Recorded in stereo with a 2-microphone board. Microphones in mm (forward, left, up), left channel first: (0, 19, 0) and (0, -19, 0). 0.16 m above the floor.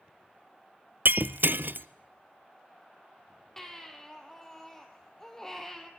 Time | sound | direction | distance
1.1 | breaking glass | 70° right (ahead or behind) | 0.5 m
3.6 | a baby crying | 10° left (ahead or behind) | 2.5 m